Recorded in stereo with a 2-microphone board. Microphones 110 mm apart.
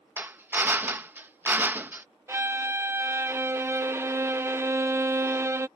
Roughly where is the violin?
Right.